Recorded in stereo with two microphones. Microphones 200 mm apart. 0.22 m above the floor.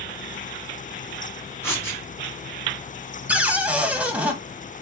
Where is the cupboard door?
5° right (ahead or behind), 0.9 m.